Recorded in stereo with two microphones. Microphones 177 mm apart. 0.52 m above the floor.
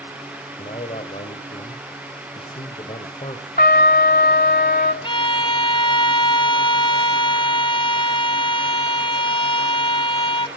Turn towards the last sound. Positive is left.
turn(degrees=30)  # may be behind; listen again after turning